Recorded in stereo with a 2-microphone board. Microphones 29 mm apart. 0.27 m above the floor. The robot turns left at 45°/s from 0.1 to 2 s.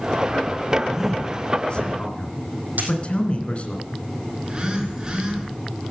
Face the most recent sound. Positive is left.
turn(degrees=-25)  # may be behind; listen again after turning